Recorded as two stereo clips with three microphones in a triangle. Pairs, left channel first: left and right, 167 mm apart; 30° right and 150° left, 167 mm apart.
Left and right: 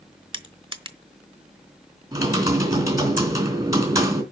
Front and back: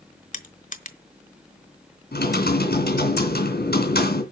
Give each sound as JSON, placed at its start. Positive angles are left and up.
{"t": 0.3, "sound": "crushing", "azimuth_deg": -40, "distance_m": 1.1}
{"t": 2.1, "sound": "typing on a keyboard", "azimuth_deg": -20, "distance_m": 3.0}